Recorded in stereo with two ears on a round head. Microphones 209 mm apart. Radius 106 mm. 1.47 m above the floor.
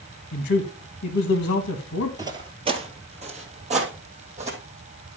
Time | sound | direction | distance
0.3 | a man speaking | 55° left (ahead or behind) | 1.6 m
2.2 | footsteps | 15° right (ahead or behind) | 1.5 m